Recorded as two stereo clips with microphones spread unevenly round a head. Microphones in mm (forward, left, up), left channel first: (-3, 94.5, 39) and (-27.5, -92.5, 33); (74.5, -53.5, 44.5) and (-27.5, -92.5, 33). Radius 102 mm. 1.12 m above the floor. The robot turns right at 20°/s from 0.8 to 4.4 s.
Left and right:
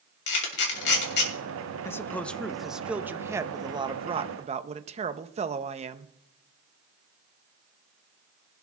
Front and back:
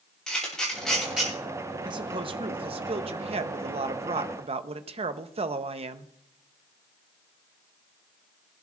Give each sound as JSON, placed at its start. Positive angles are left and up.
{"t": 0.3, "sound": "a camera shutter", "azimuth_deg": 110, "distance_m": 2.5}
{"t": 1.9, "sound": "a man speaking", "azimuth_deg": 160, "distance_m": 0.8}